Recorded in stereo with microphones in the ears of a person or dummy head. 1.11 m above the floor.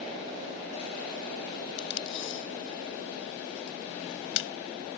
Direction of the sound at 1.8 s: 70° left (ahead or behind).